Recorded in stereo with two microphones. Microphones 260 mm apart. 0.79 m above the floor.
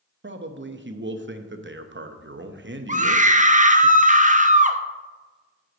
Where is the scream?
30° right (ahead or behind), 0.7 m.